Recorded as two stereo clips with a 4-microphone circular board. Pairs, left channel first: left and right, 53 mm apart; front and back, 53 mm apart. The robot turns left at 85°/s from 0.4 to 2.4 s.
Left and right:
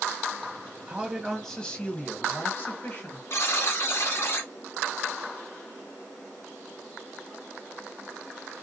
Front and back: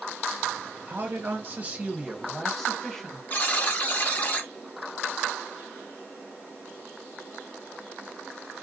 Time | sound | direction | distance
0.9 | a man speaking | 150° right | 1.3 m
3.3 | a buzzer | 55° left | 1.2 m